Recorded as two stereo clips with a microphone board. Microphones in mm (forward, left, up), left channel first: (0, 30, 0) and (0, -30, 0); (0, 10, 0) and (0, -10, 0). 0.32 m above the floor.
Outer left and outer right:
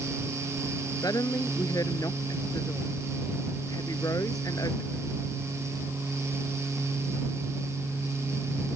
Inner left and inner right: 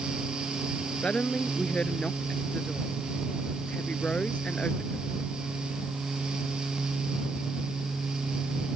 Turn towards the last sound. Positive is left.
turn(degrees=75)  # may be behind; listen again after turning